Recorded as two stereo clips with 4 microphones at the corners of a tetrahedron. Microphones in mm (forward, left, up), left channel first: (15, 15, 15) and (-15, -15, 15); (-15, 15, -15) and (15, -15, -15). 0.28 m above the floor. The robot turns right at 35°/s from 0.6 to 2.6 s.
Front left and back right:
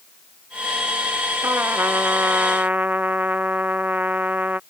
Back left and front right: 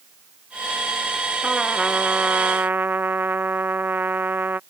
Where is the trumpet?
125° right; by 4.6 s 85° right.